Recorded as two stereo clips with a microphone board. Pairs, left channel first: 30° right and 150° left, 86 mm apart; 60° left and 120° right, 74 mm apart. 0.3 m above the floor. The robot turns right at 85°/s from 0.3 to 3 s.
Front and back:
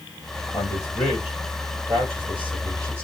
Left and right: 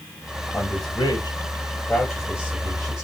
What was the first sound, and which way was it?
A man speaking, 5° left.